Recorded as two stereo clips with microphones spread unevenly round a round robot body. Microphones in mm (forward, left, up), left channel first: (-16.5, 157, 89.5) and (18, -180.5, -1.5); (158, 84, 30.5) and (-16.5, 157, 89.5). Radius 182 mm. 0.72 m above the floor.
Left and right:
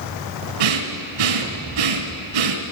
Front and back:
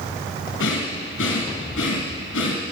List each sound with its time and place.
0.6 s breathing: 75° right, 1.5 m